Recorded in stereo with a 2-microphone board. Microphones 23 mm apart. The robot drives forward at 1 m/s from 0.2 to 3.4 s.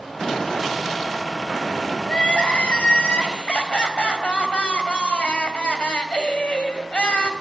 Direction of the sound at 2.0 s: 60° left (ahead or behind).